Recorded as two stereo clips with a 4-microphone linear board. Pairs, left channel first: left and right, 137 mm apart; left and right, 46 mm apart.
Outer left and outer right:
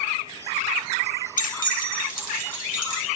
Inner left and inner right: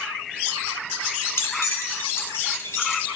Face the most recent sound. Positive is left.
turn(degrees=80)